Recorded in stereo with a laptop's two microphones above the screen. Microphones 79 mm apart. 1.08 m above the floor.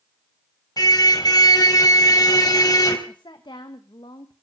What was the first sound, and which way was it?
A car horn, 55° left (ahead or behind).